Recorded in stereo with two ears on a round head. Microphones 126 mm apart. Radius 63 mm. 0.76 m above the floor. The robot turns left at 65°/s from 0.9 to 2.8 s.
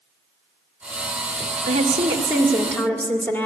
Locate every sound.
1.7 s a woman speaking: 120° right, 2 m; by 3.5 s 165° left, 2 m